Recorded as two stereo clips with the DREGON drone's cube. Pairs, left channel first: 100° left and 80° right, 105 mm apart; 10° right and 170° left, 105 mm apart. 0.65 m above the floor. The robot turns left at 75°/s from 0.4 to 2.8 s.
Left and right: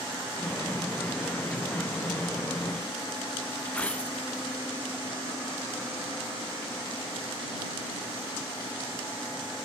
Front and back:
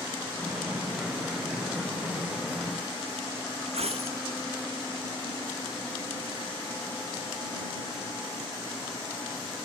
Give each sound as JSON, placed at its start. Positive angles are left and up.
{"t": 3.6, "sound": "a dropped coin", "azimuth_deg": 180}